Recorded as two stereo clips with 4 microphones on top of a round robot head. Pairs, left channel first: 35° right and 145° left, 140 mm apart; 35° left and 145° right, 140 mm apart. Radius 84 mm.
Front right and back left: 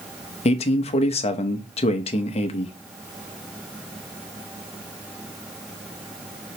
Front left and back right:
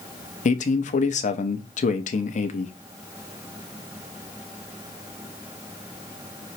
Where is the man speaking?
5° left, 0.8 m.